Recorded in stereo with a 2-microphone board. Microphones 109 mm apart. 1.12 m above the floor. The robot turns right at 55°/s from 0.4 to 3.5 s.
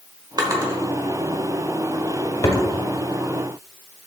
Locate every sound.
0.4 s a drawer: 35° right (ahead or behind), 1.0 m; by 2.6 s 40° left (ahead or behind), 1.0 m